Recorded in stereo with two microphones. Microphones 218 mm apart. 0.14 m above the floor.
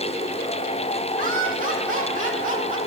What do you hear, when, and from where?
1.2 s laughter: 40° right (ahead or behind), 6 m